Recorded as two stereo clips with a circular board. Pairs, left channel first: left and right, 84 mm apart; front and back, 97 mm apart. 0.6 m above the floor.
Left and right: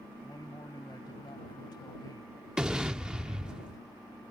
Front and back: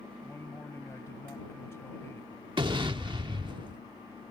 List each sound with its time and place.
0.2 s a man speaking: 60° left
2.6 s an explosion: 170° right